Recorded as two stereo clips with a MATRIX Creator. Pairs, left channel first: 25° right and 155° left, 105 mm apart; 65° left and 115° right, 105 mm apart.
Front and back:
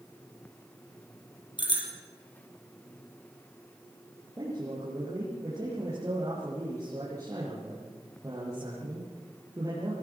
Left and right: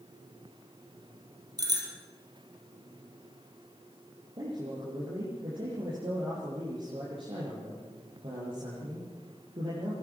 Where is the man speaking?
145° right, 7 m.